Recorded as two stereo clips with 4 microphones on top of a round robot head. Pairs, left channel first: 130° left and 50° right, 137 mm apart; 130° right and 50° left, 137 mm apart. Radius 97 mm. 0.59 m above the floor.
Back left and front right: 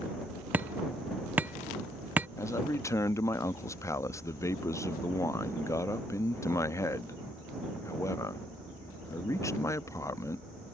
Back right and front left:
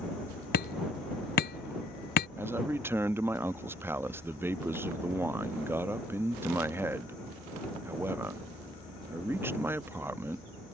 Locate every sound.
0.5 s hammering: 130° right
2.4 s a man speaking: 100° left